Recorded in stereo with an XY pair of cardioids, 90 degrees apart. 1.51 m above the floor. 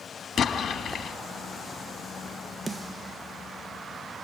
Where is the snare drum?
30° right, 1.4 m.